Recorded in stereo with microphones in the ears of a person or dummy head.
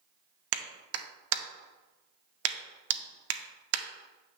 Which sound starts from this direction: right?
A clap, at 0.5 s.